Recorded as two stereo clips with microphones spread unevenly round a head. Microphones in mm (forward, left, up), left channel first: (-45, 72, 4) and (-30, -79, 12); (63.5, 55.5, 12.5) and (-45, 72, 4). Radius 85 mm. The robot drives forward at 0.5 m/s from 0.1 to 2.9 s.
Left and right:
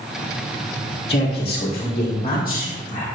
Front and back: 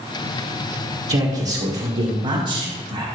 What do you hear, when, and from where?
1.1 s a man speaking: 145° left, 1.5 m; by 3.0 s 160° left, 2.5 m